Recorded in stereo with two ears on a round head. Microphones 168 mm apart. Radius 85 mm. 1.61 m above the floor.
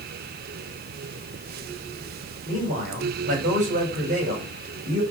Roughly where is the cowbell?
No cowbell in this recording.